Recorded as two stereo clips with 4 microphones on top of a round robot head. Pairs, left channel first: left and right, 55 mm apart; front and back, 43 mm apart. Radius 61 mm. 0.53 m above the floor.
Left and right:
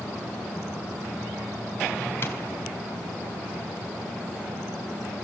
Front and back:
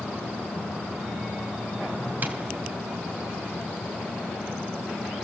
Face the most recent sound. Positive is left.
turn(degrees=135)